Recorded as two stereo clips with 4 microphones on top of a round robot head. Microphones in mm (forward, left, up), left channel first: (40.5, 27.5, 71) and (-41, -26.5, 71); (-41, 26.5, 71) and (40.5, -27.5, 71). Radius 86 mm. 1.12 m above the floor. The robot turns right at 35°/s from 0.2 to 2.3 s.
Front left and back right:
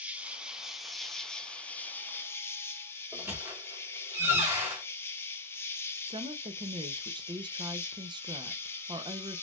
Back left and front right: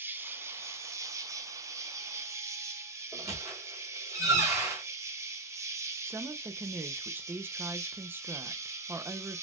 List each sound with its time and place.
0.0 s an insect: 80° right, 0.8 m; by 9.4 s 10° right, 0.8 m
3.1 s a squeak: 85° right, 0.7 m
6.1 s a woman speaking: 105° right, 0.6 m